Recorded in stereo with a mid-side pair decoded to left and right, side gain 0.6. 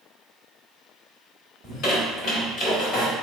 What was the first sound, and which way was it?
A squeak, 65° left.